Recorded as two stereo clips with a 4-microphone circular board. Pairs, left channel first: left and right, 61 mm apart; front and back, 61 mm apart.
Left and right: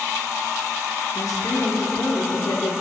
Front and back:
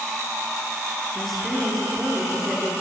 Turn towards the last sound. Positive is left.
turn(degrees=85)